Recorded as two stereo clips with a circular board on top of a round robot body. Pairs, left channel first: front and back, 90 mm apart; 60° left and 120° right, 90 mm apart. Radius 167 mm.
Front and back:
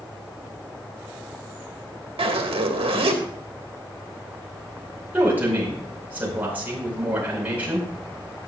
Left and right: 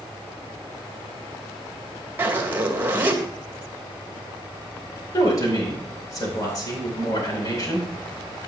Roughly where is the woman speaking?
Left.